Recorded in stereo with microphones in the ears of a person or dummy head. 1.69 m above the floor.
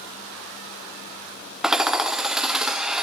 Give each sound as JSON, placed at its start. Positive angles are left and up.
{"t": 1.6, "sound": "hammering", "side_deg": -5, "distance_m": 0.5}